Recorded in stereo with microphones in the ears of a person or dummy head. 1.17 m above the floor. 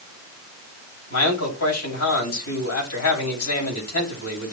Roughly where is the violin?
I don't hear a violin.